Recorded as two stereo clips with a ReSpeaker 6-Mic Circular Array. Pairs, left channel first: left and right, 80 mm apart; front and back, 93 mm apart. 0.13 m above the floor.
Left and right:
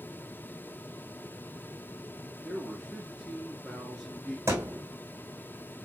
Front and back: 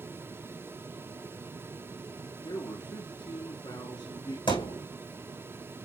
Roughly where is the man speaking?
Ahead.